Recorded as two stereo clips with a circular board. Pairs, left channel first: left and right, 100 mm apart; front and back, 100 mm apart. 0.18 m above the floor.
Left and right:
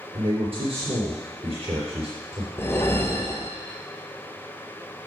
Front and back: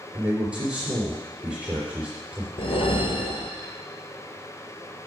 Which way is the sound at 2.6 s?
20° left.